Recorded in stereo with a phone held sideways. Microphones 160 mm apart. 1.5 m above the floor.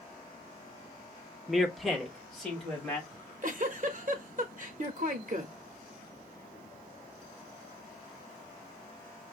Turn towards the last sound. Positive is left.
turn(degrees=-55)  # may be behind; listen again after turning